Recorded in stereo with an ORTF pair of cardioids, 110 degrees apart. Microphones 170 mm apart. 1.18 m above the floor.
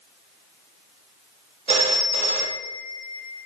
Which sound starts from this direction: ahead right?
A phone ringing, at 1.7 s.